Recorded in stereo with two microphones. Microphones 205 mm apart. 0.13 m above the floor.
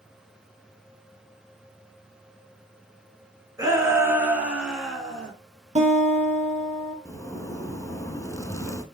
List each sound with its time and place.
3.6 s a shout: 15° right (ahead or behind), 1.5 m; by 5.3 s 5° left (ahead or behind), 1.4 m
5.8 s a guitar: 35° right (ahead or behind), 1.6 m
7.0 s a zipper: 15° left (ahead or behind), 0.6 m